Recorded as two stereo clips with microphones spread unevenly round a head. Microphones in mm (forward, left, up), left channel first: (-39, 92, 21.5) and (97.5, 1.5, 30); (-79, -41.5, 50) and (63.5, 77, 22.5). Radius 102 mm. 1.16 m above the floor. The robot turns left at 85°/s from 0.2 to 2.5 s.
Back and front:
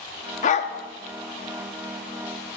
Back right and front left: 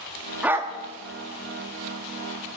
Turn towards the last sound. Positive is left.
turn(degrees=-45)